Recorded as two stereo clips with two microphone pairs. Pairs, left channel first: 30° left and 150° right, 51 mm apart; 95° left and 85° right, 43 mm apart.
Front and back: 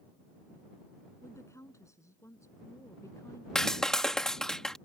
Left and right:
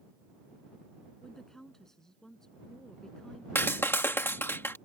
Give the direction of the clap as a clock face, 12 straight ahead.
8 o'clock.